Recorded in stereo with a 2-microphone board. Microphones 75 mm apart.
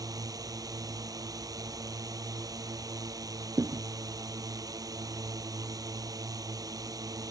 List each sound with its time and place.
0.0 s a drone: 55° right (ahead or behind)
3.6 s a thud: 40° right (ahead or behind)